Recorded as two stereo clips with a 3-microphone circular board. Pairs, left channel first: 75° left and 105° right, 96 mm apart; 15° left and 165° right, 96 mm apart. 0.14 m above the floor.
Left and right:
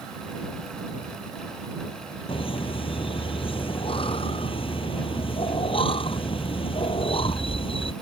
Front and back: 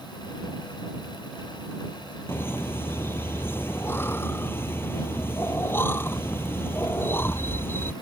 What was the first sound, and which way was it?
Laughter, 80° left.